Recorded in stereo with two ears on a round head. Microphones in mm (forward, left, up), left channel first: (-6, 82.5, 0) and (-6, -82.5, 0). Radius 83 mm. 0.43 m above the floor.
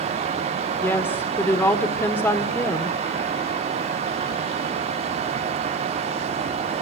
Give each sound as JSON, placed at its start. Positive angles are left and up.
{"t": 0.8, "sound": "a woman speaking", "side_deg": 10, "distance_m": 1.4}